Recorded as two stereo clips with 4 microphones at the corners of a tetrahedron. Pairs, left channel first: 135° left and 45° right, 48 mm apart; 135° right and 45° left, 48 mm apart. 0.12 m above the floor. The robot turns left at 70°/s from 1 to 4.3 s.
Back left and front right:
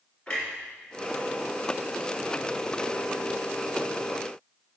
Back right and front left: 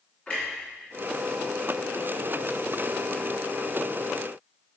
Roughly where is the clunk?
Behind.